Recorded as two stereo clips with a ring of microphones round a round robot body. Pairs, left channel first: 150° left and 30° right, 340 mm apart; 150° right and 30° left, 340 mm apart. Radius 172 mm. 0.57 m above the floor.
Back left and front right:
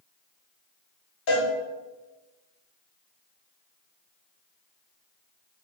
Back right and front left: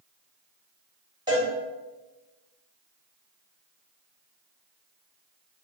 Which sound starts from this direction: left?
A cowbell, at 1.3 s.